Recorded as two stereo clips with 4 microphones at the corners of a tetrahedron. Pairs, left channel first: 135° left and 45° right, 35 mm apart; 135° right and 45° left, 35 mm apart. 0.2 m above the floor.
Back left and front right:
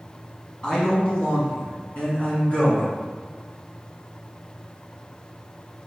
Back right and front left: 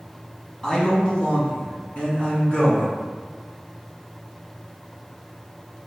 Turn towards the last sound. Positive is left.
turn(degrees=175)